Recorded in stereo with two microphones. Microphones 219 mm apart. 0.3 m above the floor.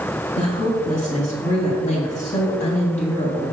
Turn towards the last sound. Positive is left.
turn(degrees=35)  # may be behind; listen again after turning